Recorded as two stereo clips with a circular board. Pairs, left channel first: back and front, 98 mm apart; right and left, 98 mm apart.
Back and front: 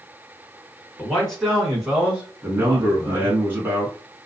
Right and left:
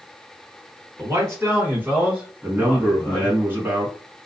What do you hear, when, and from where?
1.0 s a man speaking: 105° left, 1.5 m; by 3.4 s 25° right, 1.5 m
2.4 s a man speaking: 50° left, 1.2 m